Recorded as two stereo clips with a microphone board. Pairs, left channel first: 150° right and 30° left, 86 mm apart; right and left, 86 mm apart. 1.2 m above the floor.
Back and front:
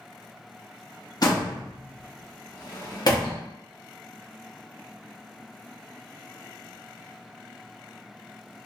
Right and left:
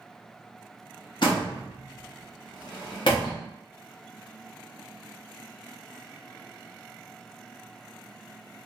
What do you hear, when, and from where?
1.2 s a door slam: 115° right, 1.3 m